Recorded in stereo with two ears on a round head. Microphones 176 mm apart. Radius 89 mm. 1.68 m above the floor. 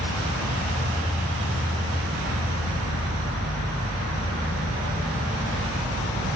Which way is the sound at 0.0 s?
15° left (ahead or behind).